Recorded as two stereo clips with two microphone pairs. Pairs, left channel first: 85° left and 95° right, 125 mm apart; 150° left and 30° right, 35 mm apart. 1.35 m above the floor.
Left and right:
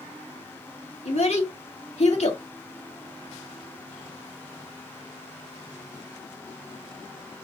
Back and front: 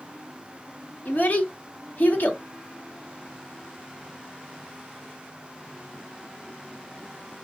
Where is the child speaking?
115° left, 1.9 m.